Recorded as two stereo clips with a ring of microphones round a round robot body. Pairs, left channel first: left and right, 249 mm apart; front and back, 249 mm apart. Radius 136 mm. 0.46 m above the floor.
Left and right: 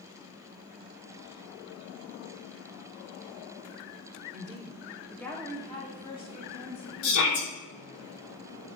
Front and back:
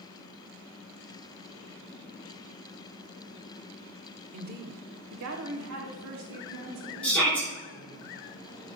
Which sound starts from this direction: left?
A shout, at 7.0 s.